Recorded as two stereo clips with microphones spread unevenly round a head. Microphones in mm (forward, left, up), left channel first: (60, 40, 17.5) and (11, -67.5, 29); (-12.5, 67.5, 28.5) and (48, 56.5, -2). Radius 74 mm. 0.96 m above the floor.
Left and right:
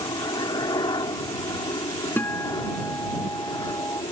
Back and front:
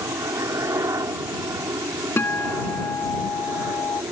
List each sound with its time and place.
0.0 s a helicopter: 15° left
2.2 s a guitar: 145° left